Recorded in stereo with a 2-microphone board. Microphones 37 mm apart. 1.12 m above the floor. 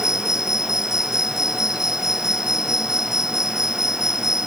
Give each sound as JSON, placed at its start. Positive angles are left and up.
{"t": 0.0, "sound": "an insect", "side_deg": -15}